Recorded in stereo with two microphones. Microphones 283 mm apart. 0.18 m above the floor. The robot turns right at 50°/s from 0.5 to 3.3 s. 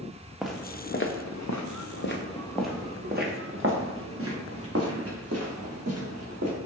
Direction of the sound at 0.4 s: Centre (ahead or behind).